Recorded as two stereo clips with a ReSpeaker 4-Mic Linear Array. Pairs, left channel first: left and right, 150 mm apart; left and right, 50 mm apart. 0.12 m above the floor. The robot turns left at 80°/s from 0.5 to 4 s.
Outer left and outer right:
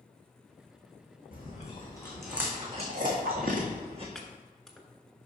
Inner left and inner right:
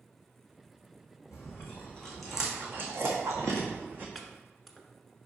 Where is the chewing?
75° left (ahead or behind), 1.8 m; by 4.0 s 40° right (ahead or behind), 1.8 m.